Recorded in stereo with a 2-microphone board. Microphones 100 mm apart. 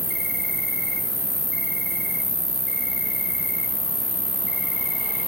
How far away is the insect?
About 2.5 m.